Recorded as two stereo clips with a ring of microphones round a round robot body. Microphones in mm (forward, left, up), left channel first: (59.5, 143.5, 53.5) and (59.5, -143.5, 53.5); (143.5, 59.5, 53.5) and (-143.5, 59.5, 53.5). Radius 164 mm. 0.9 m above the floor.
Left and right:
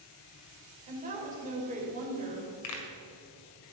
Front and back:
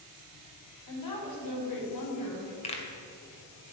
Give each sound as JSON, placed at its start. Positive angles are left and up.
{"t": 0.9, "sound": "a woman speaking", "azimuth_deg": -25, "distance_m": 3.5}
{"t": 2.6, "sound": "a pop", "azimuth_deg": 70, "distance_m": 2.0}